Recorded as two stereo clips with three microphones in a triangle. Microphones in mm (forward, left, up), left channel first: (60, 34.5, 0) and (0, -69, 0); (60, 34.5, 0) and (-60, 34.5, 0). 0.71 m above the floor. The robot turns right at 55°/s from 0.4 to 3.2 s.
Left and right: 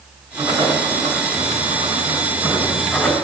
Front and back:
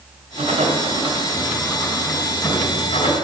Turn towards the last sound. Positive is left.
turn(degrees=-20)